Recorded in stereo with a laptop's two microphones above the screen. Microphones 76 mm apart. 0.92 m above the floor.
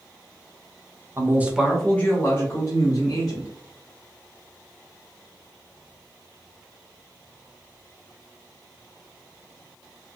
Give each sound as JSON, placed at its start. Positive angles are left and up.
{"t": 1.2, "sound": "a man speaking", "side_deg": -40, "distance_m": 0.5}